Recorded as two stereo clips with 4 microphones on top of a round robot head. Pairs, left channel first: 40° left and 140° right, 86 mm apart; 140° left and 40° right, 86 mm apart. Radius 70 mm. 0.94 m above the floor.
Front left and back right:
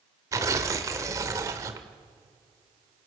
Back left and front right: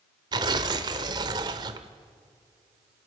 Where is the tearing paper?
80° right, 1.2 m.